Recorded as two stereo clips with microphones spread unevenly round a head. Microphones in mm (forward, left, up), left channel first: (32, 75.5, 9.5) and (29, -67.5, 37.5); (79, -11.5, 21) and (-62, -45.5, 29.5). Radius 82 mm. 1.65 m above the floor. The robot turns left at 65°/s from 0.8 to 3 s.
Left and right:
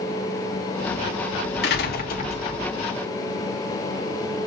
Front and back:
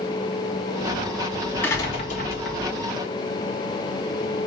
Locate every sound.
1.6 s a door slam: 90° left, 3 m; by 2.6 s 30° left, 3 m